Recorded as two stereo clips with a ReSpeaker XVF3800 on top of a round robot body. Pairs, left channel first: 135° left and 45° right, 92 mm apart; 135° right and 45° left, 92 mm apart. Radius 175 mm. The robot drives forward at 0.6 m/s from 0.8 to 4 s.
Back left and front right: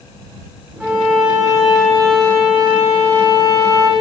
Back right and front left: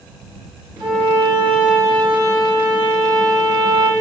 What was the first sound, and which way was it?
A violin, 35° left.